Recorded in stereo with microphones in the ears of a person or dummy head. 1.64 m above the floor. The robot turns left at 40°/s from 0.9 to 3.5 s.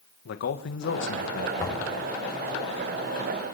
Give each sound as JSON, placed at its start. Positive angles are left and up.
{"t": 0.2, "sound": "a man speaking", "side_deg": 65, "distance_m": 2.0}
{"t": 1.6, "sound": "knocking", "side_deg": 15, "distance_m": 8.5}